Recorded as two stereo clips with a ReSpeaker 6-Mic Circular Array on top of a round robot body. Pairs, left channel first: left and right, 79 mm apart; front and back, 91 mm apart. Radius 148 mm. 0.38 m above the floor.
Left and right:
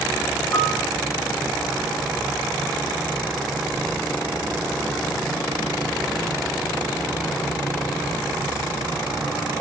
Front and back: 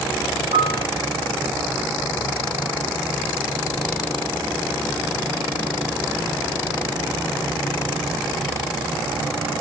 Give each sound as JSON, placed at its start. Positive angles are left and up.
{"t": 0.5, "sound": "a piano", "azimuth_deg": 150, "distance_m": 2.5}